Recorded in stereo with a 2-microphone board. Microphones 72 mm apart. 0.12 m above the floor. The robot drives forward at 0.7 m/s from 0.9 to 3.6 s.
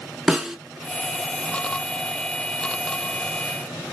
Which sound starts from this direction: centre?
A snare drum, at 0.3 s.